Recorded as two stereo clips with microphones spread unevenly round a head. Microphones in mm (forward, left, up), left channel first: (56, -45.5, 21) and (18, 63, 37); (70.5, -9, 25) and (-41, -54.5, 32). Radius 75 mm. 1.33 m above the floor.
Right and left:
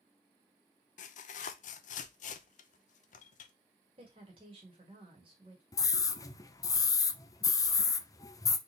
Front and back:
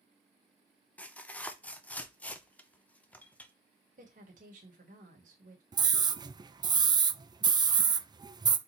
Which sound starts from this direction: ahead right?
Tearing paper, at 1.0 s.